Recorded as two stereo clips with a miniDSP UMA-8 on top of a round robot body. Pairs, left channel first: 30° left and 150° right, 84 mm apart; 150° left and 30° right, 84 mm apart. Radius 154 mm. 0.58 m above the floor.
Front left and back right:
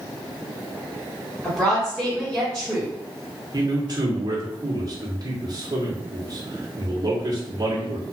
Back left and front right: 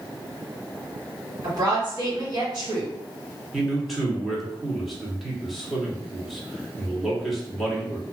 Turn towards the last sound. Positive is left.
turn(degrees=-120)